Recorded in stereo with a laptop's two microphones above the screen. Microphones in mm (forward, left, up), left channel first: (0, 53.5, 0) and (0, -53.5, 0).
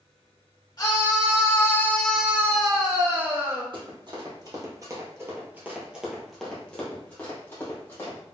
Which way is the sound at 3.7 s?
45° right (ahead or behind).